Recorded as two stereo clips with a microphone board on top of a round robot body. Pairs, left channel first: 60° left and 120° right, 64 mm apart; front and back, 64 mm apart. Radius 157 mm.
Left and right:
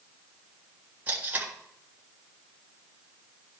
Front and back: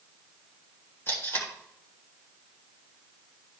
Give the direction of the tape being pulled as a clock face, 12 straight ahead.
2 o'clock.